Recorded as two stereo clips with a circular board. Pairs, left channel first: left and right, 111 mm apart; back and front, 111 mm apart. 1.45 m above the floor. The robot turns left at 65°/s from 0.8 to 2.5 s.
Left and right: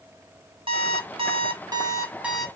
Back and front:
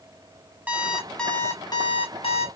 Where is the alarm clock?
70° right, 1.0 m; by 2.5 s straight behind, 1.0 m.